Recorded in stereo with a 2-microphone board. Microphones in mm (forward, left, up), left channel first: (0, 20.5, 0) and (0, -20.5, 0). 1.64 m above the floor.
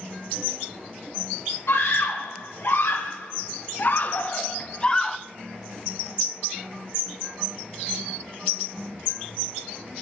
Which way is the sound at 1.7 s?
75° left (ahead or behind).